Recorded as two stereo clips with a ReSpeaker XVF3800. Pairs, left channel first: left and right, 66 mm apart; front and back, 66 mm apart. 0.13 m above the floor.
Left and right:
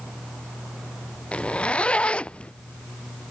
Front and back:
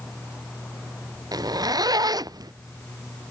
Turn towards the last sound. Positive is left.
turn(degrees=165)